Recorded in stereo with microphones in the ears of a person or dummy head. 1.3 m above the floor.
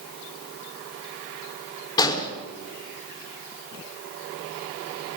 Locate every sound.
2.0 s an explosion: 25° left (ahead or behind), 4.5 m